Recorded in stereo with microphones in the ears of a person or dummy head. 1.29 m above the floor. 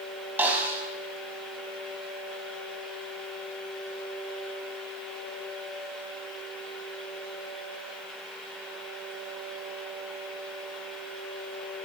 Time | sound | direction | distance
0.4 | a snare drum | 10° right (ahead or behind) | 4.5 m